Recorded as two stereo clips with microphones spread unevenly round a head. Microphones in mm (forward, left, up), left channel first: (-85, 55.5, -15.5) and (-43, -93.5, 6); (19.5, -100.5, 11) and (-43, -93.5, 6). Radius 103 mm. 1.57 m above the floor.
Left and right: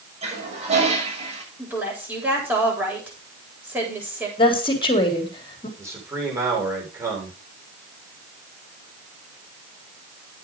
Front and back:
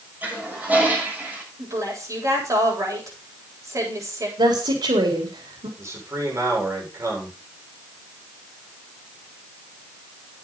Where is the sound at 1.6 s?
155° right, 9 m.